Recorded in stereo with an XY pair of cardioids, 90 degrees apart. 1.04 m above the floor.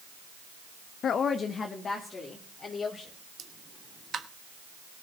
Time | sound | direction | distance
1.0 | a woman speaking | 70° left | 0.5 m
3.4 | a pop | 60° right | 1.0 m